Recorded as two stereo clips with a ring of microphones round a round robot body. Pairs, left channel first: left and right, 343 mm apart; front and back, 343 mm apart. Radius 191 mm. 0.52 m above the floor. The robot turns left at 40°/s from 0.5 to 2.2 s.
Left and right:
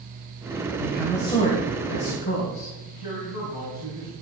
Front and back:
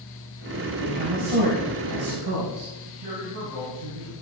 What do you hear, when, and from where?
0.8 s a woman speaking: 175° right, 3.5 m; by 2.7 s 130° left, 3.5 m
2.9 s a man speaking: 115° left, 5 m